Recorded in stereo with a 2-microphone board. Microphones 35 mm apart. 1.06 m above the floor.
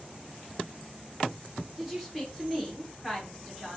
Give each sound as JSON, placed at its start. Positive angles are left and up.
{"t": 1.8, "sound": "a woman speaking", "side_deg": -5, "distance_m": 1.1}